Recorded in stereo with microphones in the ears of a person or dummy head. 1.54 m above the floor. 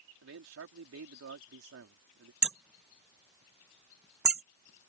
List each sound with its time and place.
0.2 s a man speaking: 70° right (ahead or behind)
2.4 s hammering: 5° right (ahead or behind)